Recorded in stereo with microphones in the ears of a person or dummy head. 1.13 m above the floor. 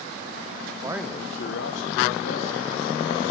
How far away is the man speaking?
About 0.8 m.